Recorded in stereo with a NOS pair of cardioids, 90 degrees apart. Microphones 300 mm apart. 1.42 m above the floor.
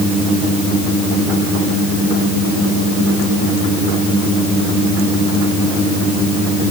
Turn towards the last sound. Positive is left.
No sound to turn to.